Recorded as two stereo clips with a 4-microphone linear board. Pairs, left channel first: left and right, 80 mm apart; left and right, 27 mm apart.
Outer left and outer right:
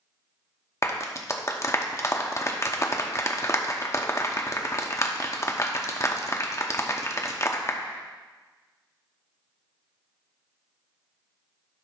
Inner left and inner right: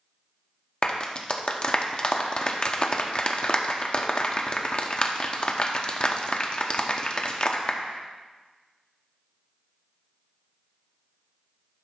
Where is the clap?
35° left (ahead or behind), 0.8 m.